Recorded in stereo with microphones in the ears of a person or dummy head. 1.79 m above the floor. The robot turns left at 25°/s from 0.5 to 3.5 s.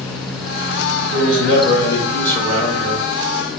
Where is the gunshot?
I don't hear a gunshot.